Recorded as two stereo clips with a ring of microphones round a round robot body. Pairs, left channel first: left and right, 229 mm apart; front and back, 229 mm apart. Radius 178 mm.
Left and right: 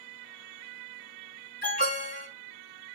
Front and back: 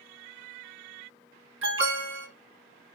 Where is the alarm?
155° left, 5 m.